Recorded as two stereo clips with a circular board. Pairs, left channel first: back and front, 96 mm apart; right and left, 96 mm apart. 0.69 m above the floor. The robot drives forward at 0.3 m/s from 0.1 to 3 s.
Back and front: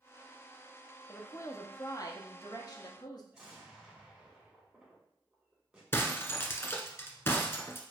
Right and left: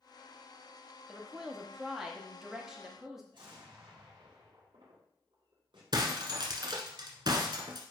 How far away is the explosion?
About 2 m.